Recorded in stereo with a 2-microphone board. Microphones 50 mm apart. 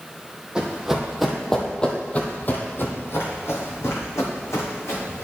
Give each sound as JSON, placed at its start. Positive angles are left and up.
{"t": 0.6, "sound": "running footsteps", "side_deg": -15, "distance_m": 1.5}